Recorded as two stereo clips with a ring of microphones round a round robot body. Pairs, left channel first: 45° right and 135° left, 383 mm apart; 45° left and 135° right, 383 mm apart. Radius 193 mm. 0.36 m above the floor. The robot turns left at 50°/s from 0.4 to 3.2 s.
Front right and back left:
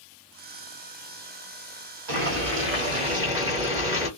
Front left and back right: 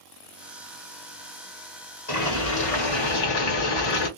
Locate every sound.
2.1 s boiling: 110° left, 1.9 m; by 4.1 s 55° left, 1.9 m